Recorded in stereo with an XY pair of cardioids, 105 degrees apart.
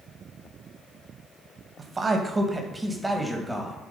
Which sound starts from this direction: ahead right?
A man speaking, at 1.8 s.